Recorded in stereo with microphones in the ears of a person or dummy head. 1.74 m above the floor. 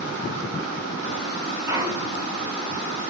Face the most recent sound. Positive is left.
turn(degrees=-15)  # may be behind; listen again after turning